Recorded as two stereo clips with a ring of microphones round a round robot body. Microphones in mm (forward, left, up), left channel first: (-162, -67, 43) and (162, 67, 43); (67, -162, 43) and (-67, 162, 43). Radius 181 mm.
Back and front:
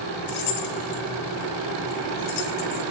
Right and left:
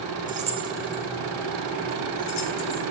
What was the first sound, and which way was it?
Keys jangling, straight behind.